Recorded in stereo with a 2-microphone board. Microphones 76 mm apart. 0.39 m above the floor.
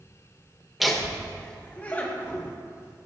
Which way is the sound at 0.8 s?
Centre (ahead or behind).